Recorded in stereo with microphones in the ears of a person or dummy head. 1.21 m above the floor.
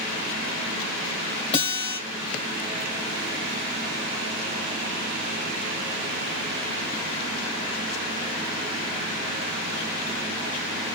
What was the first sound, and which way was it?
A guitar, 30° left (ahead or behind).